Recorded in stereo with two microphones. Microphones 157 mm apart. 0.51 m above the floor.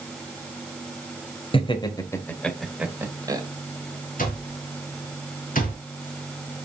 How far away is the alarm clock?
About 3.5 m.